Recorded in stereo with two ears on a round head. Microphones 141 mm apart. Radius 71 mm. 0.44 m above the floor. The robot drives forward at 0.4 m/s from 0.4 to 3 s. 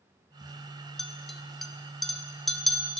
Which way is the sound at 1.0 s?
Centre (ahead or behind).